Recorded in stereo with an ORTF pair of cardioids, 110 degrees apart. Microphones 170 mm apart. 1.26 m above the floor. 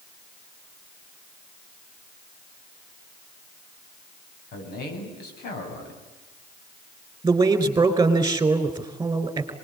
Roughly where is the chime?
I don't hear a chime.